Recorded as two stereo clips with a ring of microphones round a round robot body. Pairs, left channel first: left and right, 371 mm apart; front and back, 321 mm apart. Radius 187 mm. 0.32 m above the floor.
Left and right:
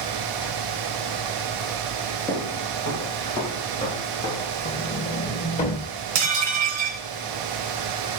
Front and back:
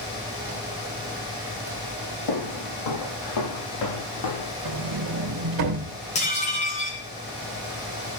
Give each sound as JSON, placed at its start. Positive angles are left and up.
{"t": 2.3, "sound": "footsteps", "azimuth_deg": 5, "distance_m": 7.5}
{"t": 4.7, "sound": "a sliding door", "azimuth_deg": 160, "distance_m": 1.9}
{"t": 6.2, "sound": "dishes clattering", "azimuth_deg": -70, "distance_m": 2.5}